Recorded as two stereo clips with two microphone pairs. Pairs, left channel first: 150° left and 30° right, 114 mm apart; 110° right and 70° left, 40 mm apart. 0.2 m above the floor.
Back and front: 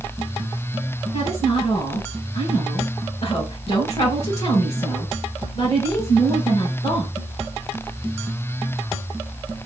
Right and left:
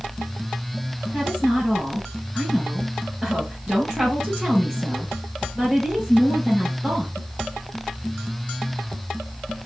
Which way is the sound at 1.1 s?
150° left.